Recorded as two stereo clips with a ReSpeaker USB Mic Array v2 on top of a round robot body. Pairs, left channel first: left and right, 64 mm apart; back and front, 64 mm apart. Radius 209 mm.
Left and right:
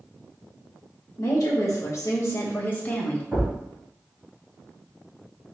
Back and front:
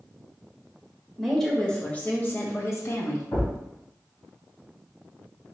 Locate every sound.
1.2 s a woman speaking: 90° left, 1.1 m; by 3.2 s 160° left, 1.2 m
3.3 s a thud: 160° right, 1.9 m